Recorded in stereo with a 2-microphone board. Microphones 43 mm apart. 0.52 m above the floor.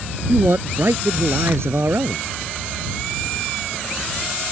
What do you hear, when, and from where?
0.3 s a man speaking: 70° right (ahead or behind)